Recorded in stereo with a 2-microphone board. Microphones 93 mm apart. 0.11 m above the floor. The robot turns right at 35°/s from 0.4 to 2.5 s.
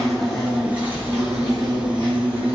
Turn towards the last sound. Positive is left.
turn(degrees=-105)